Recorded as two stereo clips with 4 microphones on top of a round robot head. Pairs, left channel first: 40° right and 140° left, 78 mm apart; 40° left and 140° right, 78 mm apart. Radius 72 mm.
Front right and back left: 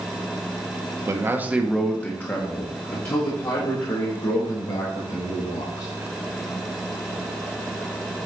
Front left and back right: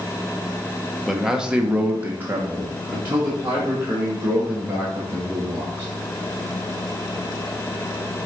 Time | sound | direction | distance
1.1 | a man speaking | 135° left | 1.1 m